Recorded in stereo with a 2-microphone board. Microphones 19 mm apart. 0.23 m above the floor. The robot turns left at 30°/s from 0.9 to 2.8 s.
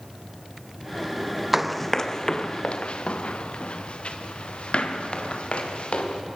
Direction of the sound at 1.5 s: 10° right (ahead or behind).